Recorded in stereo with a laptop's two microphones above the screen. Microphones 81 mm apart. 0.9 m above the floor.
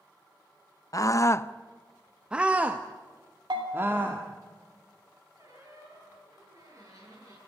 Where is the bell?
70° right (ahead or behind), 3 m.